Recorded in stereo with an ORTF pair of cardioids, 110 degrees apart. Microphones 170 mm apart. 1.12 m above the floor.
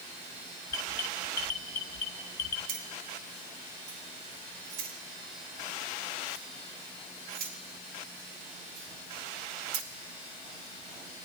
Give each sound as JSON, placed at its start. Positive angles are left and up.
{"t": 0.7, "sound": "an alarm", "azimuth_deg": 65, "distance_m": 2.0}
{"t": 2.7, "sound": "keys jangling", "azimuth_deg": -70, "distance_m": 3.0}